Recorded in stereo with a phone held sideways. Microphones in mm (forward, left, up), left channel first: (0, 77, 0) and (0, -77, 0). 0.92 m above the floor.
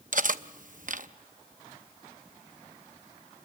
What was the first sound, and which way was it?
Cutlery clinking, 60° right (ahead or behind).